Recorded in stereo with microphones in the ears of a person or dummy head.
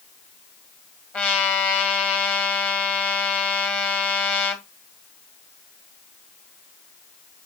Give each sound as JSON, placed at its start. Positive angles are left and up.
{"t": 1.1, "sound": "a trumpet", "side_deg": 10, "distance_m": 2.0}